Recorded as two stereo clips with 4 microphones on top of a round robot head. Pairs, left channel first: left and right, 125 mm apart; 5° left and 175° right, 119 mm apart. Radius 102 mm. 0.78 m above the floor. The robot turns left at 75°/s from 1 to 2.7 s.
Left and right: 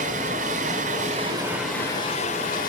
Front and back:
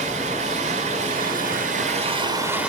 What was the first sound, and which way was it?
Running water, 130° right.